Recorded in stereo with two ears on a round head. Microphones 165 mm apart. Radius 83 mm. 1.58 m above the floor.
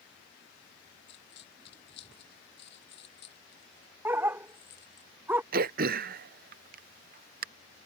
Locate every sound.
1.1 s a dropped coin: 60° left (ahead or behind)
4.0 s a dog barking: 10° right (ahead or behind)
5.5 s throat clearing: 50° right (ahead or behind)